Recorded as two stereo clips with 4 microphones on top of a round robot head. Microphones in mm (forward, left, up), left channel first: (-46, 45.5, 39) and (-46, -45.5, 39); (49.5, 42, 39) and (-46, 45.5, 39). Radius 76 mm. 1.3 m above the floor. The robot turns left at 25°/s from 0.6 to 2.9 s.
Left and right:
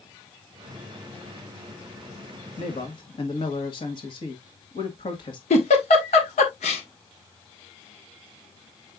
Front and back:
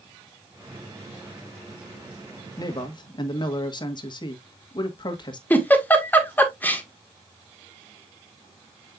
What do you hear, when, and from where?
2.6 s a man speaking: 45° left, 1.8 m; by 5.4 s 40° left, 1.8 m
5.5 s a giggle: 70° left, 1.7 m